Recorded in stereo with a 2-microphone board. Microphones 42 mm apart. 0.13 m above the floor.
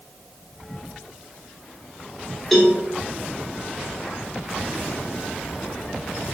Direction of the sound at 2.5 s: 10° left (ahead or behind).